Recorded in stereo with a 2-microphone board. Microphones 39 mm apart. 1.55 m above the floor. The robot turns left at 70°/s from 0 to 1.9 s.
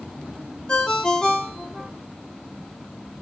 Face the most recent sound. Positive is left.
turn(degrees=0)  # may be behind; listen again after turning